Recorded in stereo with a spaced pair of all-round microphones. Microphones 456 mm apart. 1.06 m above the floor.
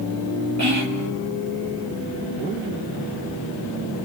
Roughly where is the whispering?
Right.